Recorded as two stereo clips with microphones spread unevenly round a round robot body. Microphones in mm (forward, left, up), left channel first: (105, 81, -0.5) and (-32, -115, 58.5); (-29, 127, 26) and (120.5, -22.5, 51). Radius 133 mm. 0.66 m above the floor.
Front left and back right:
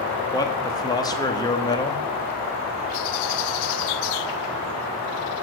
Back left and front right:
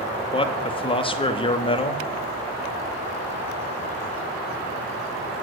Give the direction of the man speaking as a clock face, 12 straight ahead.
9 o'clock.